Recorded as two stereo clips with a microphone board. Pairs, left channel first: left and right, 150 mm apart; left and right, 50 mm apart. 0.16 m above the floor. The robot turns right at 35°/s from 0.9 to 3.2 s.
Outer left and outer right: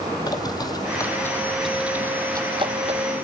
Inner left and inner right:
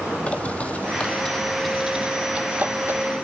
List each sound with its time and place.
0.3 s a bird: 25° left (ahead or behind), 1.7 m; by 3.0 s 50° right (ahead or behind), 1.7 m